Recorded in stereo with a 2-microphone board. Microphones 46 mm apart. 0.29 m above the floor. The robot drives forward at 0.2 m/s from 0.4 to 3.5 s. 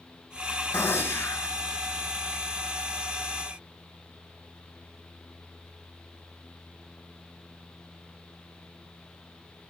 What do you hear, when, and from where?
0.7 s a gunshot: 60° left (ahead or behind), 1.5 m